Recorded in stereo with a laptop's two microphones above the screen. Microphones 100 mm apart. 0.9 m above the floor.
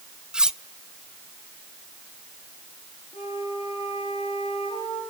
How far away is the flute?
About 10 m.